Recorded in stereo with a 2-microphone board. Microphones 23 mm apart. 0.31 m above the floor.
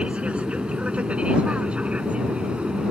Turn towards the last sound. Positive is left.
turn(degrees=-60)  # may be behind; listen again after turning